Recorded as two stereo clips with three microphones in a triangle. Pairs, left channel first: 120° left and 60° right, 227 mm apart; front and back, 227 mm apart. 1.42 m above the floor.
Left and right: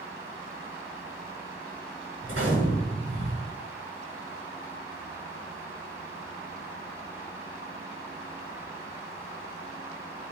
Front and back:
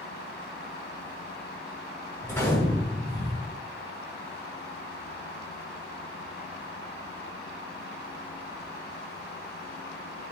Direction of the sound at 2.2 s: 80° right.